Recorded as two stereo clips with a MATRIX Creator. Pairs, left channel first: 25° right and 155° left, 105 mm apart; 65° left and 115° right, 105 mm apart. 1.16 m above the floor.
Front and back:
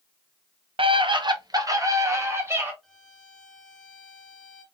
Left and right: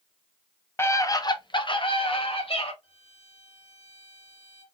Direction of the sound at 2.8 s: 70° left.